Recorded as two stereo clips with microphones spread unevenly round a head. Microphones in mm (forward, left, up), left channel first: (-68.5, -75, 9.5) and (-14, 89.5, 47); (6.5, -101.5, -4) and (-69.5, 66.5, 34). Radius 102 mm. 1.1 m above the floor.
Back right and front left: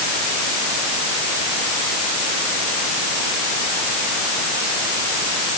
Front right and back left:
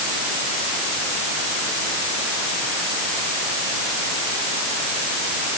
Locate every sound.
Only background noise.